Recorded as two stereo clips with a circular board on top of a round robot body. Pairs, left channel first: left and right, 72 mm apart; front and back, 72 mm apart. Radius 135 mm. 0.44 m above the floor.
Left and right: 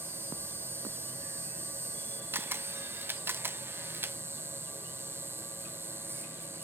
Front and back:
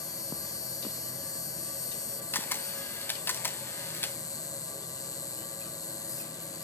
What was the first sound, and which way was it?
An insect, 35° right.